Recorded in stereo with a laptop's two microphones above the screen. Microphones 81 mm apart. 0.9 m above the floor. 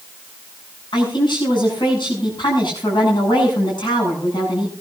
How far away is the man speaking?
About 8 m.